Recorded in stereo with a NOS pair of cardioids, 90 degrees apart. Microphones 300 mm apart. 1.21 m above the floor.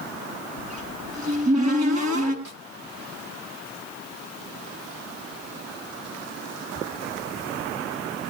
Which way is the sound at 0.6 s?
65° right.